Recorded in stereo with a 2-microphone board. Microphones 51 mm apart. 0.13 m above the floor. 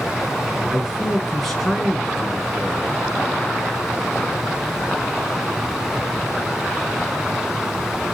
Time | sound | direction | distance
0.7 | a man speaking | 5° left (ahead or behind) | 1.1 m